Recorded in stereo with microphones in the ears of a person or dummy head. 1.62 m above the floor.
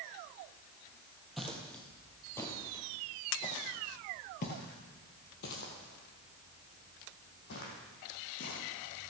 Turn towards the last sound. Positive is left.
turn(degrees=50)  # may be behind; listen again after turning